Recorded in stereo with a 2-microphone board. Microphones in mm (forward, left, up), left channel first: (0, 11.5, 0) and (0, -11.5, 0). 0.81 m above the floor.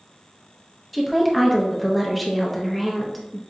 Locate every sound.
0.9 s a woman speaking: centre (ahead or behind), 0.6 m